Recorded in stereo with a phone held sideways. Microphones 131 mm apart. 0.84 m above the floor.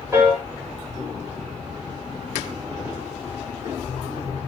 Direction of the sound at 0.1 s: 20° right (ahead or behind).